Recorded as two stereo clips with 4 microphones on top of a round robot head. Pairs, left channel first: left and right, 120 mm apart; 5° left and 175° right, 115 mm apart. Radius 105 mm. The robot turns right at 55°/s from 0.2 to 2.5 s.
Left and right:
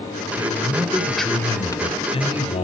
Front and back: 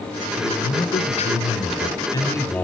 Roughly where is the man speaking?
Ahead right.